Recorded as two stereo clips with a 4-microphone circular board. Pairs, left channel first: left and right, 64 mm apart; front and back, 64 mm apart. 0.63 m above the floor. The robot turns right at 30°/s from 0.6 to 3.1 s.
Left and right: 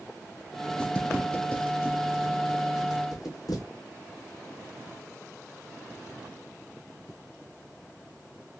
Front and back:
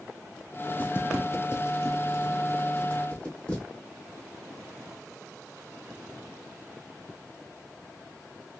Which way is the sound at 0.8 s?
35° left.